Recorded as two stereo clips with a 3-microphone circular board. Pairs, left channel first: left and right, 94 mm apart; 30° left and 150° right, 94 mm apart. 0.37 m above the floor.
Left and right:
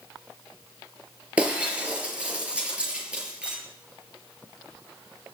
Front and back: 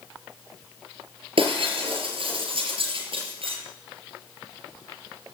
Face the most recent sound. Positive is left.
turn(degrees=-165)